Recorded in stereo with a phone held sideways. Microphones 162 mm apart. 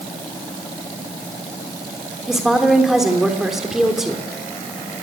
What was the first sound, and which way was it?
A woman speaking, centre (ahead or behind).